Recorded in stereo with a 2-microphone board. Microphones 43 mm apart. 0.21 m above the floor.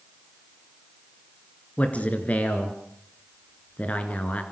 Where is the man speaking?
35° left (ahead or behind), 3.5 m.